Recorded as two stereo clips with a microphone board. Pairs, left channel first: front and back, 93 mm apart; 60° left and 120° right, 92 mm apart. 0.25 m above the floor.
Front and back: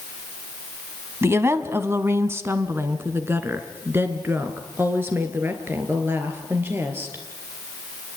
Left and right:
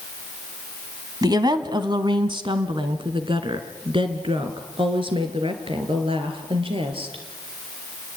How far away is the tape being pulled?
No tape being pulled in this recording.